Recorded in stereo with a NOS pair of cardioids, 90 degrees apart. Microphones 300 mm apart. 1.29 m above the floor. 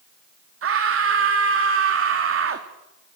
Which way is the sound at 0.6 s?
50° right.